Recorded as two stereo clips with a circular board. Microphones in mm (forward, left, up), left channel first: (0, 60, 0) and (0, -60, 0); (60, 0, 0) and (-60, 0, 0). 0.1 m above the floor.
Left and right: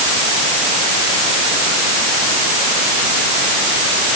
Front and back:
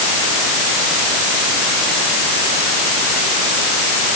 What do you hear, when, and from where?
Only background noise.